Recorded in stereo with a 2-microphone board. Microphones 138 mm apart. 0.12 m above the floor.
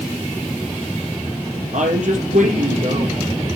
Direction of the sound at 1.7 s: 65° right (ahead or behind).